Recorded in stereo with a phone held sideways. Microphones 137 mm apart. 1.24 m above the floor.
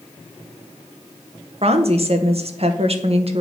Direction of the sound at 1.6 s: 50° right (ahead or behind).